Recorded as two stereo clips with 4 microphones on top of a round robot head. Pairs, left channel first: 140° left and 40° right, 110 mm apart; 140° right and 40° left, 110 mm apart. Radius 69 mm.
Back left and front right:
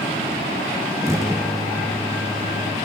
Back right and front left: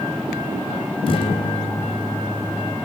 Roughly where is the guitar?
Right.